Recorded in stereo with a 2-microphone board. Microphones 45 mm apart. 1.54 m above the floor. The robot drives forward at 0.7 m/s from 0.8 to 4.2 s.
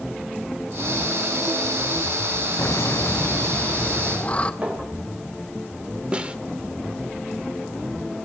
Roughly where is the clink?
Right.